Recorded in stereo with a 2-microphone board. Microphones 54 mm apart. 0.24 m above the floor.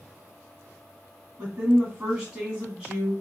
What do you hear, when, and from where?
1.4 s a woman speaking: 15° right (ahead or behind), 1.8 m